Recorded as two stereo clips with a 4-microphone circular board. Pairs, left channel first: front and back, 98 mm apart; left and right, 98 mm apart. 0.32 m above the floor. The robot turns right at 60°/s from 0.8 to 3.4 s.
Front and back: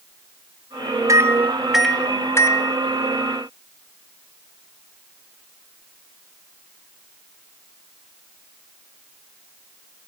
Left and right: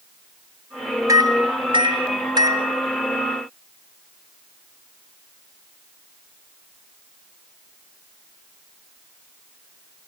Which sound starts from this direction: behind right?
A microwave, at 1.1 s.